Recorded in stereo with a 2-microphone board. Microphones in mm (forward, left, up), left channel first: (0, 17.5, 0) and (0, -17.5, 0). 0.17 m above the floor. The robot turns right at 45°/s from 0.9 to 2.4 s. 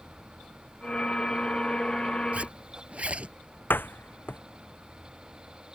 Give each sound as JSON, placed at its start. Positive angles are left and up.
{"t": 2.3, "sound": "a zipper", "side_deg": -45}
{"t": 3.7, "sound": "a door slam", "side_deg": 80}